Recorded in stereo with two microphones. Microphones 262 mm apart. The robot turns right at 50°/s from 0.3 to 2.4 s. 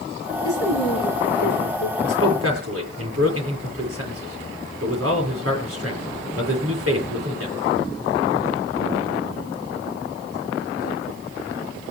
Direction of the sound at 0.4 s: 60° left.